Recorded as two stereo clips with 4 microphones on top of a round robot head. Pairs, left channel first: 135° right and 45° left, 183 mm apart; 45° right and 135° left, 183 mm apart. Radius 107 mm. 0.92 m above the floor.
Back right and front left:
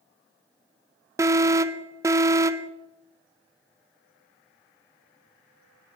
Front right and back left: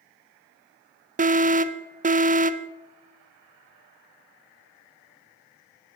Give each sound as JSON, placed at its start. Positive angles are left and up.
{"t": 1.2, "sound": "an alarm", "azimuth_deg": 115, "distance_m": 0.8}